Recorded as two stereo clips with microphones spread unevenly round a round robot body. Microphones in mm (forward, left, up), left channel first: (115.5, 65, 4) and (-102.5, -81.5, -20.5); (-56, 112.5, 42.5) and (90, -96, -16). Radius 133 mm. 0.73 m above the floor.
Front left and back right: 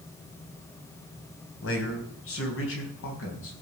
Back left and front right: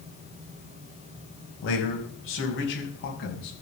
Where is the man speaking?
80° left, 4 m.